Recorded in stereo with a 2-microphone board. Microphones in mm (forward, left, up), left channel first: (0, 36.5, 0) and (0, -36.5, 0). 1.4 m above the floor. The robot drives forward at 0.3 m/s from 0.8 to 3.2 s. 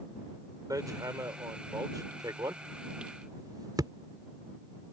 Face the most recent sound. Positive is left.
turn(degrees=-65)  # may be behind; listen again after turning